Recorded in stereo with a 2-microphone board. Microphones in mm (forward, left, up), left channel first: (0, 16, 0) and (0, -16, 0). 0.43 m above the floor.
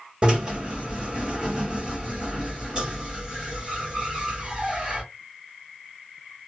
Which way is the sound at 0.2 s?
30° right (ahead or behind).